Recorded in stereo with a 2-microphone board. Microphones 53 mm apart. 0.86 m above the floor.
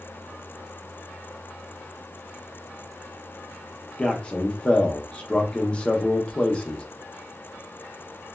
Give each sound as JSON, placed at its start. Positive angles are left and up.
{"t": 4.0, "sound": "a man speaking", "side_deg": 20, "distance_m": 0.6}